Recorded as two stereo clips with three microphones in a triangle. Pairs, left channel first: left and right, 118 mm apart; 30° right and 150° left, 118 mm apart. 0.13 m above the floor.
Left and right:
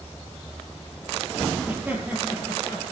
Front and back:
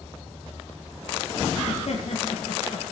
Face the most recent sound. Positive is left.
turn(degrees=-20)